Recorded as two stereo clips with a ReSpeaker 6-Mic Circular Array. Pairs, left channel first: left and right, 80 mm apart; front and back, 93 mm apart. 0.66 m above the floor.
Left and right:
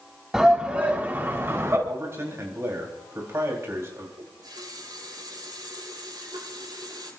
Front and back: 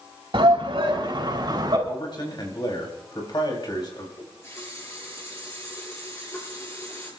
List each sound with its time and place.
0.3 s a shout: 175° right, 3.5 m; by 1.8 s 145° right, 4 m
1.9 s a man speaking: 35° right, 4 m
4.2 s a running tap: 60° right, 7.5 m